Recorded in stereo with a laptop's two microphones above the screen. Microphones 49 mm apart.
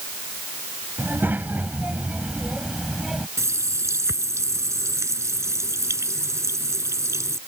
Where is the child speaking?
40° right (ahead or behind); by 3.3 s 5° right (ahead or behind).